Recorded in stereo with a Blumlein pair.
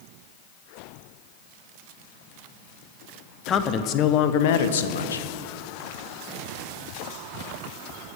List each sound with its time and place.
3.5 s a man speaking: 20° left, 1.1 m; by 5.3 s 80° left, 1.0 m